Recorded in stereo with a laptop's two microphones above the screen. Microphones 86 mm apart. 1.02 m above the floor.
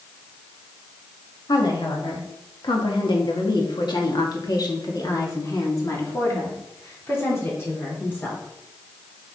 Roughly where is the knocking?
No knocking in this recording.